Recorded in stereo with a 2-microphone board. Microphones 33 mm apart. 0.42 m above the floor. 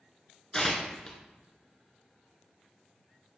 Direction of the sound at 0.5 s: 20° left (ahead or behind).